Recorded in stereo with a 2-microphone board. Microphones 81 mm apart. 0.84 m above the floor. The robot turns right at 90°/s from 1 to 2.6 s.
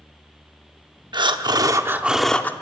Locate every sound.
1.1 s breathing: 100° right, 0.6 m; by 2.5 s 25° left, 0.6 m